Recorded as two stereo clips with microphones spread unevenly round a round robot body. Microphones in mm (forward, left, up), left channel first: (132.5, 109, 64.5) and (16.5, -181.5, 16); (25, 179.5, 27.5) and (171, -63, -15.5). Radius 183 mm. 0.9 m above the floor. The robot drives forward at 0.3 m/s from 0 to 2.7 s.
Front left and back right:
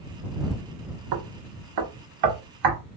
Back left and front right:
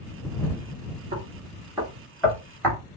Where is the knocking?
130° right, 0.6 m; by 2.8 s 150° right, 1.0 m.